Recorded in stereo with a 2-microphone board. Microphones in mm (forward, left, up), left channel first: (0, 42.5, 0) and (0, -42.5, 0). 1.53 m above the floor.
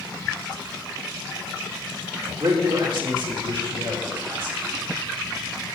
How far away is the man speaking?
About 3.5 m.